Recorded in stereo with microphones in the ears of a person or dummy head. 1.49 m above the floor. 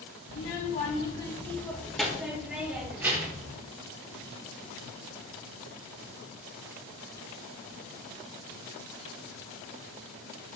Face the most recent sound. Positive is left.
turn(degrees=-20)  # may be behind; listen again after turning